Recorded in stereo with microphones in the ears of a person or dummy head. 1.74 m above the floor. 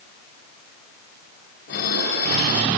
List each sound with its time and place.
1.7 s dishes clattering: 60° left (ahead or behind), 4 m